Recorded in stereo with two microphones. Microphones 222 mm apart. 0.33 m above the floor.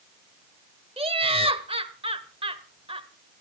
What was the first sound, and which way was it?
Laughter, 25° right (ahead or behind).